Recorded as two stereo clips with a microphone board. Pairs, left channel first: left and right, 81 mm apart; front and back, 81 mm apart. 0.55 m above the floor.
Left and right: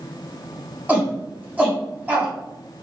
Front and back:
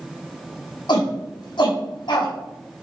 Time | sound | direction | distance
0.9 | a shout | 20° right | 4.5 m